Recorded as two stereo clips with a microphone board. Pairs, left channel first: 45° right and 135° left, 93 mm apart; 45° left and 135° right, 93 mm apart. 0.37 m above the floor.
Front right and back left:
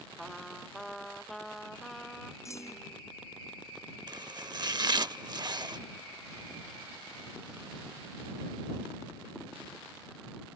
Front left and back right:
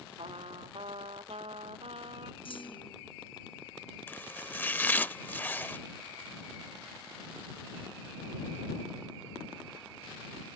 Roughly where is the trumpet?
Behind right.